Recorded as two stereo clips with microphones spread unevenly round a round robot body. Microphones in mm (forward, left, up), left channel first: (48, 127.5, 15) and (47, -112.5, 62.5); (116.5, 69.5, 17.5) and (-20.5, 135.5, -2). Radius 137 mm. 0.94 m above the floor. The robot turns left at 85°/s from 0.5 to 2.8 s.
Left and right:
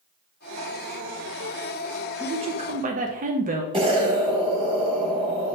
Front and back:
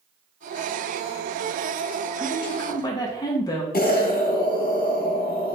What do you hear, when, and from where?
2.2 s a woman speaking: 15° right, 0.7 m; by 3.6 s 65° right, 0.7 m
3.7 s an explosion: 15° right, 1.8 m